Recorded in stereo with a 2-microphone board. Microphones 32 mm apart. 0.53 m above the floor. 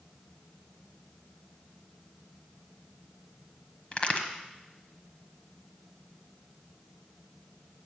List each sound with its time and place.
3.9 s a crack: 35° left (ahead or behind), 1.2 m